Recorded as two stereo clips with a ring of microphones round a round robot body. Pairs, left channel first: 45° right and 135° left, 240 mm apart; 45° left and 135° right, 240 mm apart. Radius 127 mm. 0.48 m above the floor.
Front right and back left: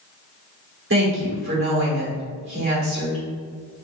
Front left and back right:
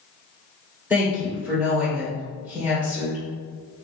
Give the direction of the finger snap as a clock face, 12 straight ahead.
No finger snap in this recording.